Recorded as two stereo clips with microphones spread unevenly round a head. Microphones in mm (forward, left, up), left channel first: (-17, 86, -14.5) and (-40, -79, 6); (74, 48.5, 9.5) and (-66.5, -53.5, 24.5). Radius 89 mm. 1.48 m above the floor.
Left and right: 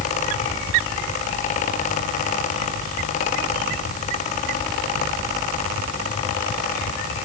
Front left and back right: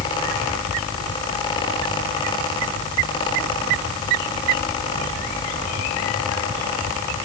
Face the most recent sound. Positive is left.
No sound to turn to.